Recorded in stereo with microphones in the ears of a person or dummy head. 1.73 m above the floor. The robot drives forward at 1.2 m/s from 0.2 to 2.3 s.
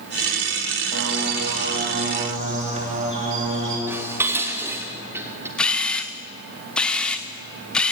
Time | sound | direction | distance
0.9 | a bird | 65° right (ahead or behind) | 2.0 m
3.9 | dishes clattering | 10° right (ahead or behind) | 3 m
5.6 | a camera shutter | 5° left (ahead or behind) | 1.1 m